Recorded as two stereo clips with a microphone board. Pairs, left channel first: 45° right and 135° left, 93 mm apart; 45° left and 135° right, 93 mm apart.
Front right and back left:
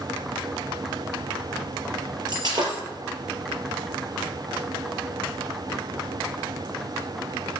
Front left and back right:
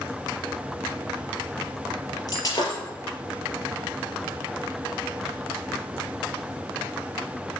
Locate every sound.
2.3 s breaking glass: 90° left, 4 m